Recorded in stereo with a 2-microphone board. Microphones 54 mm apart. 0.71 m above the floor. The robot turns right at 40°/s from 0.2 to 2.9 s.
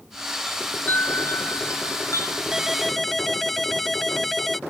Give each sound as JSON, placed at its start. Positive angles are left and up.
{"t": 0.5, "sound": "a chime", "azimuth_deg": 15}
{"t": 2.5, "sound": "a ringtone", "side_deg": -15}